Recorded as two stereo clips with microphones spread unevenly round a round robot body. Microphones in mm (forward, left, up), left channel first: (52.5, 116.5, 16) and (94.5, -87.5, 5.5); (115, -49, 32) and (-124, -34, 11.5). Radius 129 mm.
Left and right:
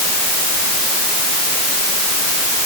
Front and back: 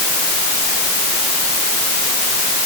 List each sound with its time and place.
Only background noise.